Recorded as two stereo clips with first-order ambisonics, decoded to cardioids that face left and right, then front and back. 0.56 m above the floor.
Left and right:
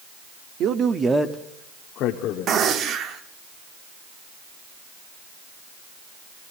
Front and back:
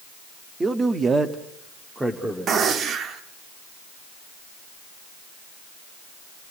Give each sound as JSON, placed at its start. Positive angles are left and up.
{"t": 0.6, "sound": "a man speaking", "azimuth_deg": -110, "distance_m": 1.0}
{"t": 2.5, "sound": "a gunshot", "azimuth_deg": -130, "distance_m": 0.9}